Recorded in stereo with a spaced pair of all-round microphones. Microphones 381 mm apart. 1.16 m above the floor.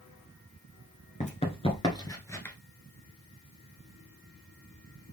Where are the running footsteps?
20° left (ahead or behind), 1.1 m; by 2.5 s 5° left (ahead or behind), 1.3 m.